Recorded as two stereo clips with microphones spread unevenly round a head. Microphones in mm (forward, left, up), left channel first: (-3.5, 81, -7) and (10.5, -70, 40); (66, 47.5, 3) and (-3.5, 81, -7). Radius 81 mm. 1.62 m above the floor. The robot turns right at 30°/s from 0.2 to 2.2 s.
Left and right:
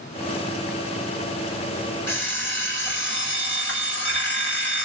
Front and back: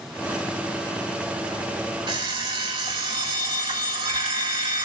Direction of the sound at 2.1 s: 175° left.